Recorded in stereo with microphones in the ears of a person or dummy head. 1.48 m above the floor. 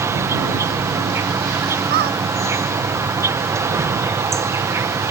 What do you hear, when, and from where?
0.0 s an insect: 25° right (ahead or behind)
1.9 s a squeak: 55° right (ahead or behind)